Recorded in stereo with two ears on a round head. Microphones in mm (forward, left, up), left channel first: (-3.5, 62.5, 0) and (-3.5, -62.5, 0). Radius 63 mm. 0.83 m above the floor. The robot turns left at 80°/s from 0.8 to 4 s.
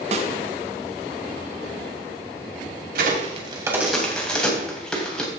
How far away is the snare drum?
About 1.2 m.